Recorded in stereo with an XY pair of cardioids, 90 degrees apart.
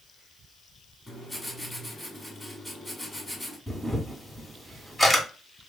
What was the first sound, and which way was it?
Writing, 10° left.